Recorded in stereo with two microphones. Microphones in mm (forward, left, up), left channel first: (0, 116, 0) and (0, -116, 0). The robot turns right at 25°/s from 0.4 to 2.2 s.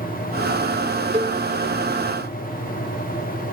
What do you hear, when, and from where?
1.1 s a cowbell: 25° right (ahead or behind), 3 m; by 1.4 s 20° right (ahead or behind), 3 m